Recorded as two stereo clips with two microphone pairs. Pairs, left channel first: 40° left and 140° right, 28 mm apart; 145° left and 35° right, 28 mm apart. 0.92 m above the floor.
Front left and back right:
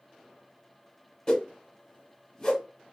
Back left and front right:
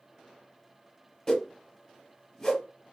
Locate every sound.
1.3 s a whoosh: 85° left, 0.8 m